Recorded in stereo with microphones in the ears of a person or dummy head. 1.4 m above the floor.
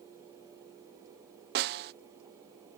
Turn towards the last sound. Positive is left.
turn(degrees=-55)  # may be behind; listen again after turning